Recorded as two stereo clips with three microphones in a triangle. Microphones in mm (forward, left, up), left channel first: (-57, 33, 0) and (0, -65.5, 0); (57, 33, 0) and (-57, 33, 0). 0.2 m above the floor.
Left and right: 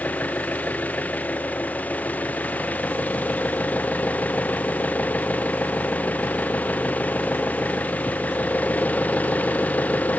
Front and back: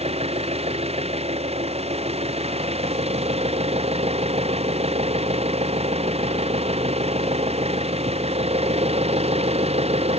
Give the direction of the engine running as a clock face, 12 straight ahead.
6 o'clock.